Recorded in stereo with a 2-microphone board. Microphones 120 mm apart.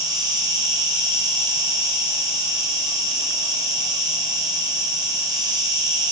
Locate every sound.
0.0 s an insect: 35° right (ahead or behind), 5.5 m